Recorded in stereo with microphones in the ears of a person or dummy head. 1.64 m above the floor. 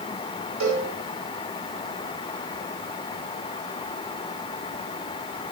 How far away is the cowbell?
About 8.5 m.